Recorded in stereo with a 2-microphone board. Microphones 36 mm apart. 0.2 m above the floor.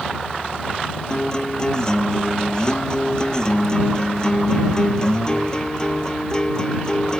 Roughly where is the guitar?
Left.